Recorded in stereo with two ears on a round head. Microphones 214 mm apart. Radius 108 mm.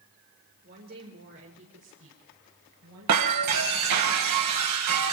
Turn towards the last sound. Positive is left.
turn(degrees=-80)